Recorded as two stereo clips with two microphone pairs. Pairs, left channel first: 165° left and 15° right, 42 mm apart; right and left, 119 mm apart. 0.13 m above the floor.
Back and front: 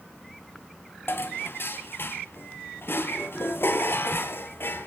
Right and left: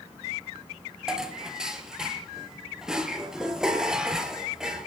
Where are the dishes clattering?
175° left, 1.9 m.